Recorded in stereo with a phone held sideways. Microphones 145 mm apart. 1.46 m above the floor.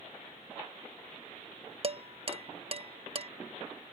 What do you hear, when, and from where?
1.8 s dishes clattering: 40° right (ahead or behind)